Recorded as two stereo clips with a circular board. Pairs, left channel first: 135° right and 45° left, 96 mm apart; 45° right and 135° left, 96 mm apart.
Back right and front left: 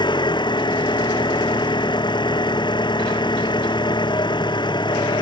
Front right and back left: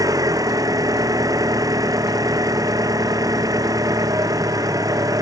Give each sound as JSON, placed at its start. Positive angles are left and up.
{"t": 0.0, "sound": "an engine running", "azimuth_deg": -175}